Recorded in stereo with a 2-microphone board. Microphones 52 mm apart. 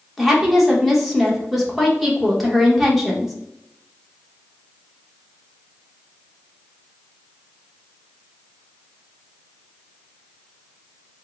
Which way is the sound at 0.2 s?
5° right (ahead or behind).